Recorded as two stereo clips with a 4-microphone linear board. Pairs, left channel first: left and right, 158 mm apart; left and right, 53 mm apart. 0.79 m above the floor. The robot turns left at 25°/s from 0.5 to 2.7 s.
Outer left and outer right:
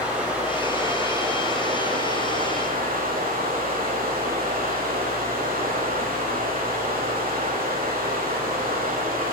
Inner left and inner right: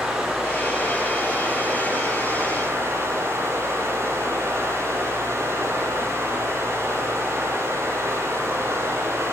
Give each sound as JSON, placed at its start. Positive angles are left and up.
{"t": 0.0, "sound": "running water", "azimuth_deg": -10, "distance_m": 6.0}